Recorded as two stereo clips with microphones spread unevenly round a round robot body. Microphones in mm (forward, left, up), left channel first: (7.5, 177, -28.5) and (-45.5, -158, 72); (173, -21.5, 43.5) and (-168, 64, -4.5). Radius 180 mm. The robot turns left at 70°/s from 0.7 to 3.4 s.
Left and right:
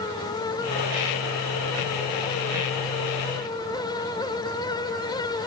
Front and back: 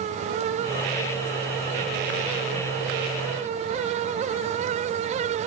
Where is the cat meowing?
No cat meowing in this recording.